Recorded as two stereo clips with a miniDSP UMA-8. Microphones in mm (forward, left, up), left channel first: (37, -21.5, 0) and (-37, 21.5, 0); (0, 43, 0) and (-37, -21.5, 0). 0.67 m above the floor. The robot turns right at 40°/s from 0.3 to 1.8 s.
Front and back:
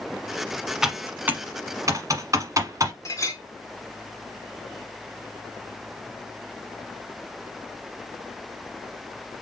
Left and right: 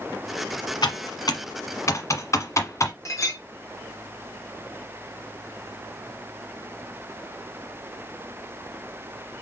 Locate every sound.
0.8 s typing on a keyboard: 65° left, 1.2 m; by 2.9 s 105° left, 1.2 m
3.0 s a clink: 20° left, 1.4 m